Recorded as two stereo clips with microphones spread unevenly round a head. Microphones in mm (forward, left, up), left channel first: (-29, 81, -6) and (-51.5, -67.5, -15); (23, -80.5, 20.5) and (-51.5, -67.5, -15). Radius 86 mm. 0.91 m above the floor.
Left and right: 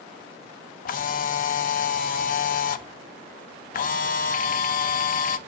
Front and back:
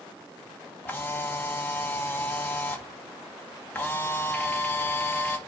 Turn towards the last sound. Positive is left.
turn(degrees=90)